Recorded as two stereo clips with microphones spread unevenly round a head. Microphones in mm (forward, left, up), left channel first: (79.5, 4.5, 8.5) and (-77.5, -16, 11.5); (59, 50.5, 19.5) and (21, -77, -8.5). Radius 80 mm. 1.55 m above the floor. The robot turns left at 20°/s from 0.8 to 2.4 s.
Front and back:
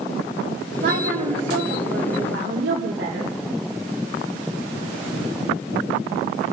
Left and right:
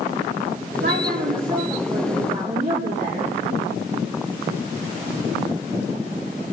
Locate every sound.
0.8 s a woman speaking: 125° right, 2.5 m; by 3.4 s 155° right, 2.5 m